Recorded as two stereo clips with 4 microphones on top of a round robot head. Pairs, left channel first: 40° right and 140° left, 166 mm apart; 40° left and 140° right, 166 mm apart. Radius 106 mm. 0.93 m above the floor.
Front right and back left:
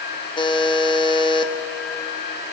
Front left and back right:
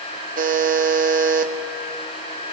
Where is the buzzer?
105° right, 1.5 m.